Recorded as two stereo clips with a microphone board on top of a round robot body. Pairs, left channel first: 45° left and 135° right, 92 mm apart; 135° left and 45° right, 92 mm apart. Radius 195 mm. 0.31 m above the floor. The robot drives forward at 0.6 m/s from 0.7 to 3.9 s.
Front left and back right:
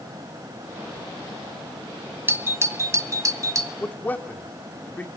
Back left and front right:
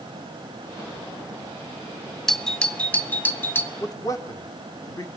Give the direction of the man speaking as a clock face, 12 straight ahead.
8 o'clock.